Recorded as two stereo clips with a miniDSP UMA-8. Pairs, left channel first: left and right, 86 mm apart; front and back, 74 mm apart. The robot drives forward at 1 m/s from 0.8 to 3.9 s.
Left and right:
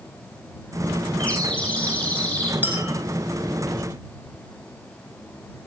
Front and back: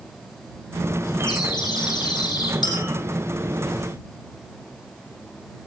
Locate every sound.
1.2 s a bird: 15° left, 7.5 m; by 2.5 s 20° left, 6 m
2.6 s a clink: 20° right, 4.5 m